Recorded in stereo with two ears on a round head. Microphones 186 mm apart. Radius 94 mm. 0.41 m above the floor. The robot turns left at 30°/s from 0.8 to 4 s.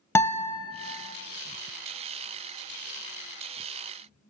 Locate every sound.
0.1 s a guitar: 10° left (ahead or behind), 0.5 m